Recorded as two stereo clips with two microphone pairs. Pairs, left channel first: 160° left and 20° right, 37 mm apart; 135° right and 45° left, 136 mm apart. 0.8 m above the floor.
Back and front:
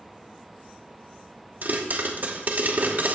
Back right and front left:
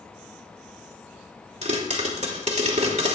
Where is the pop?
15° left, 2.5 m.